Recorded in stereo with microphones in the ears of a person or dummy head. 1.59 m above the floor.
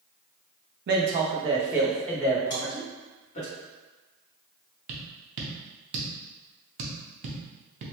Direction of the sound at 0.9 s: 55° right (ahead or behind).